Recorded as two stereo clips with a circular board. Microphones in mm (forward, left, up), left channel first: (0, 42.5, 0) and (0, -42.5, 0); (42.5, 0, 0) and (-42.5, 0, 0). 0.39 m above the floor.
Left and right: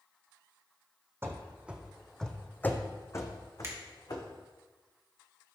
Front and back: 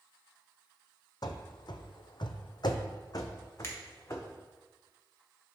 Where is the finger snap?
45° right, 1.5 m.